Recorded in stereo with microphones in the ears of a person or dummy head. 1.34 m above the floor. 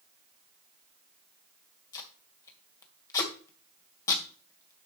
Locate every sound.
1.9 s tape being pulled: 20° left (ahead or behind), 1.8 m